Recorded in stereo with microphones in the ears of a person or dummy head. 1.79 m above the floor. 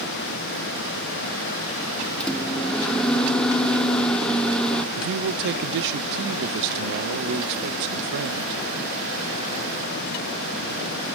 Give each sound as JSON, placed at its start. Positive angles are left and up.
{"t": 2.2, "sound": "a microwave", "side_deg": 0, "distance_m": 0.9}
{"t": 5.0, "sound": "a man speaking", "side_deg": -60, "distance_m": 0.7}